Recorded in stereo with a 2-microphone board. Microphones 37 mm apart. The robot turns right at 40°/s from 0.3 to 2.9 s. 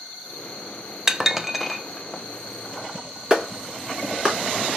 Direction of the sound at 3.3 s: 20° right (ahead or behind).